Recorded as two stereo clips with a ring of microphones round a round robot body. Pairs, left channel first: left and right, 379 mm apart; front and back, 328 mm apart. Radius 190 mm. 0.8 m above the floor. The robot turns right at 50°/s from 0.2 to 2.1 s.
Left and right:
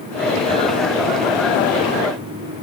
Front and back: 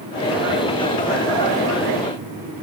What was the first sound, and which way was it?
Only background noise.